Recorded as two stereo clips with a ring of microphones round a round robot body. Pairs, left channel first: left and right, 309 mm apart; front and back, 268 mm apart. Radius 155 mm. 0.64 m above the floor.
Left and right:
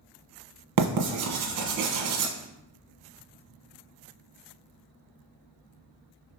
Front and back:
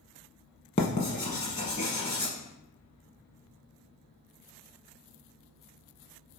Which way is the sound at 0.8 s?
70° right.